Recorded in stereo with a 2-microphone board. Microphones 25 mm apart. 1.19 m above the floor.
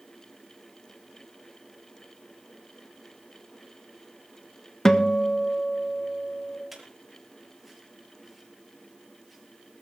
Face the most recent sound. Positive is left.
turn(degrees=-5)  # may be behind; listen again after turning